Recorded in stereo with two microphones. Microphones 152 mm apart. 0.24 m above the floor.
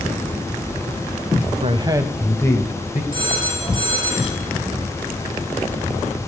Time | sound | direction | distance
1.6 | a man speaking | 40° right (ahead or behind) | 1.2 m
3.1 | a phone ringing | 35° right (ahead or behind) | 3.5 m